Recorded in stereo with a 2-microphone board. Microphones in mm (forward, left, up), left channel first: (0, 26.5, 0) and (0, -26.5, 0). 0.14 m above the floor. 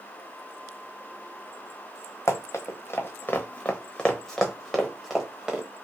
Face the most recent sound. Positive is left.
turn(degrees=-15)  # may be behind; listen again after turning